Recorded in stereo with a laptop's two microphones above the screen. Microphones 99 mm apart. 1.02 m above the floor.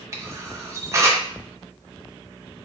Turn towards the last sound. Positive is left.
turn(degrees=-25)  # may be behind; listen again after turning